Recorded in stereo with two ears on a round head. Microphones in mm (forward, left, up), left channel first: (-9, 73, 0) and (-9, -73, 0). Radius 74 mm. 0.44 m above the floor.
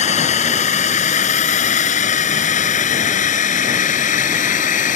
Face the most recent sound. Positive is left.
turn(degrees=50)  # may be behind; listen again after turning